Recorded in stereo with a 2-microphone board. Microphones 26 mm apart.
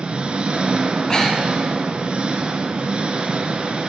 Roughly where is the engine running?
Right.